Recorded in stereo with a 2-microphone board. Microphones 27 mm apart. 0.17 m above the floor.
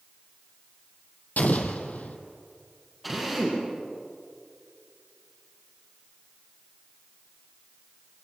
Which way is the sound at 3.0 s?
Centre (ahead or behind).